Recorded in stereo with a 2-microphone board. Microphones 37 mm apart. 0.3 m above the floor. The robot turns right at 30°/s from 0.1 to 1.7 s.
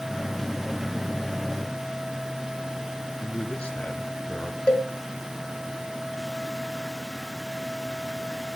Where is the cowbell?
25° left (ahead or behind), 1.9 m.